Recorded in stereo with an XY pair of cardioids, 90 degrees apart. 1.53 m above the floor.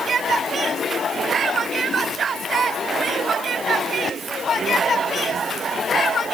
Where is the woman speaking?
No woman speaking in this recording.